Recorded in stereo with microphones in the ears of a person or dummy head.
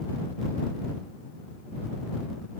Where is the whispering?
I don't hear whispering.